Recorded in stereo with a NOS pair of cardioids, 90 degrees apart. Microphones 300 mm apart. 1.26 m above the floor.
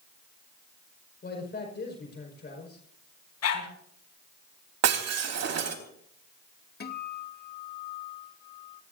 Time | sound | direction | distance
1.2 | a man speaking | 35° left | 5.5 m
3.4 | a dog barking | 55° left | 5 m
4.8 | breaking glass | 60° right | 3.5 m
6.8 | a guitar | 35° left | 2 m